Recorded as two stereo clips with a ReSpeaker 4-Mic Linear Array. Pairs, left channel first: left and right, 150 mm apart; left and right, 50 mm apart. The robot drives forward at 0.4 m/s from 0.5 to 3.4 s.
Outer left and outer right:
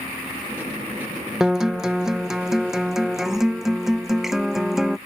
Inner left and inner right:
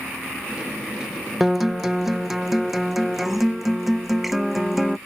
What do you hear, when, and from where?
1.4 s a guitar: 5° right (ahead or behind)